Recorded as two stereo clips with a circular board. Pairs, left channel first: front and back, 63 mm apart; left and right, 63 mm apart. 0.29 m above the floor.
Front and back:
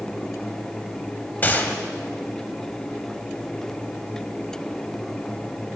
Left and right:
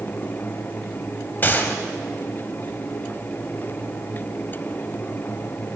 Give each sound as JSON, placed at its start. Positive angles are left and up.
{"t": 1.4, "sound": "a gunshot", "azimuth_deg": 50, "distance_m": 0.9}